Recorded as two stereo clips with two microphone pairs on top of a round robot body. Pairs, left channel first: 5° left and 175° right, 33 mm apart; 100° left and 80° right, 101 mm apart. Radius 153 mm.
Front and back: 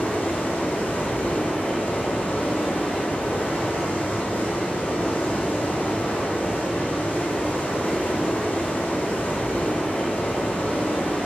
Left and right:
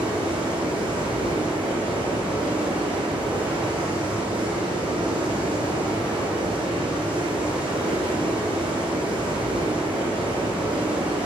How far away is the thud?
I don't hear a thud.